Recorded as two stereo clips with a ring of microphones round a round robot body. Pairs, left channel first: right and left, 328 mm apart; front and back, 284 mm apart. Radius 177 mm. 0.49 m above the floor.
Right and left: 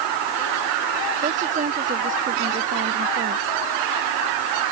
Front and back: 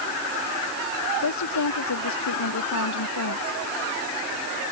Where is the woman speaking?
20° left; by 3.6 s 25° left.